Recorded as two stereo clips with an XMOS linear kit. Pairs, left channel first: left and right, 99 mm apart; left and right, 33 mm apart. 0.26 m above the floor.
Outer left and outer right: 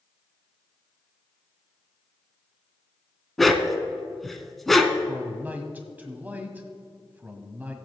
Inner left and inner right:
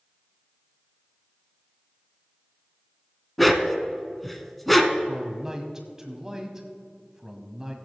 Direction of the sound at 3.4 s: Centre (ahead or behind).